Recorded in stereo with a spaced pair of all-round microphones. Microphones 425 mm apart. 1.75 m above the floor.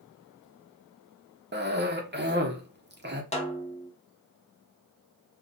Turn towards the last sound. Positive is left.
turn(degrees=15)  # may be behind; listen again after turning